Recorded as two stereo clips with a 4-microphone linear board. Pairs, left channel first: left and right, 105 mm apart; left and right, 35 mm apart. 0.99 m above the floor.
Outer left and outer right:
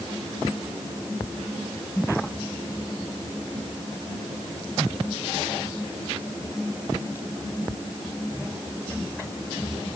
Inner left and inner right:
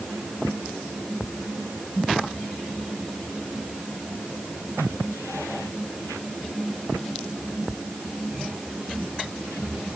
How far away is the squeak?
No squeak in this recording.